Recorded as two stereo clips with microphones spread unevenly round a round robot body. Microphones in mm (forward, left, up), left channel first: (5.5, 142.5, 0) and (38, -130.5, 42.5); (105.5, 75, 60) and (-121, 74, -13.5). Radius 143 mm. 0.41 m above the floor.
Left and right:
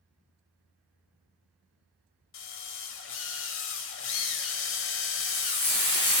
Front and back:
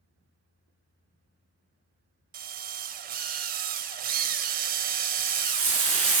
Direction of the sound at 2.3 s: 135° left.